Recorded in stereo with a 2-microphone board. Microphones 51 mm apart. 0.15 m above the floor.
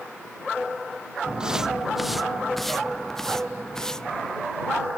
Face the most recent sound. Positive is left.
turn(degrees=10)  # may be behind; listen again after turning